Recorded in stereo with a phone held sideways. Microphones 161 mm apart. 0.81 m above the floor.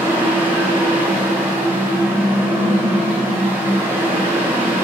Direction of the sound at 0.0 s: 15° right (ahead or behind).